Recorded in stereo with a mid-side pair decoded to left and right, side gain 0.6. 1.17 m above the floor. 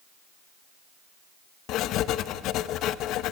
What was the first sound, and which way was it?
Writing, 65° left.